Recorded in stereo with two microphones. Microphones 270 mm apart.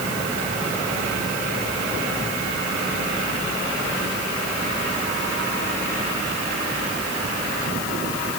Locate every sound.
Only background noise.